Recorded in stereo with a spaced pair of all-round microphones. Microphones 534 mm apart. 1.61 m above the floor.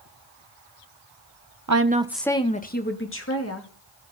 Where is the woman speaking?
35° right (ahead or behind), 0.8 m; by 3.7 s 30° left (ahead or behind), 3 m.